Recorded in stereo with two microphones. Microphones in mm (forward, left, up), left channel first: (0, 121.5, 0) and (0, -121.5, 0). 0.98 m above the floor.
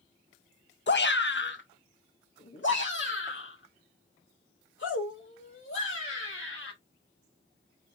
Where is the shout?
50° left (ahead or behind), 0.7 m; by 6.7 s 55° left (ahead or behind), 4 m.